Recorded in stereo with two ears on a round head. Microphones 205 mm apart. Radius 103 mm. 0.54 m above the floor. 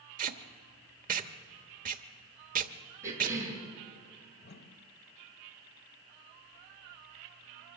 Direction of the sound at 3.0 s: 15° right (ahead or behind).